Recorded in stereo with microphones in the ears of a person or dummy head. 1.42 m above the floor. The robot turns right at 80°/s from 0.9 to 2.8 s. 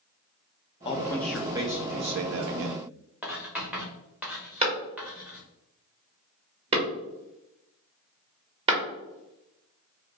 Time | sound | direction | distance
0.8 | a man speaking | 145° left | 0.5 m
3.2 | writing | 5° right (ahead or behind) | 0.7 m
4.6 | a clap | 35° right (ahead or behind) | 1.2 m